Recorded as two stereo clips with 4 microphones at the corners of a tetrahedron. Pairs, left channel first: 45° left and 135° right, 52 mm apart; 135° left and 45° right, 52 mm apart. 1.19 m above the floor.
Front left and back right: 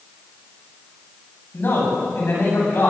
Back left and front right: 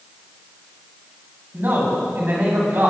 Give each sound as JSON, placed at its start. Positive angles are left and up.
{"t": 1.5, "sound": "a man speaking", "azimuth_deg": 5, "distance_m": 8.5}